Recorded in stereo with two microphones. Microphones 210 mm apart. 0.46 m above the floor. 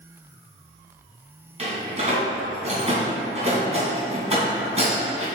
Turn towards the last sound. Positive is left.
turn(degrees=-30)  # may be behind; listen again after turning